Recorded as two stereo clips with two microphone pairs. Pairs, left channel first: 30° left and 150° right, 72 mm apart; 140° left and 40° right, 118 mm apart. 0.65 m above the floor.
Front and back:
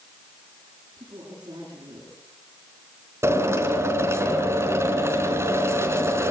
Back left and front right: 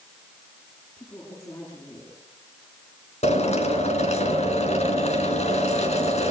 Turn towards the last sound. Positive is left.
turn(degrees=160)